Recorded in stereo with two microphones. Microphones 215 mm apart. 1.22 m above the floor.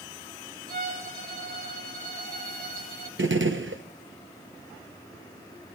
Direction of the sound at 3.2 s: 65° right (ahead or behind).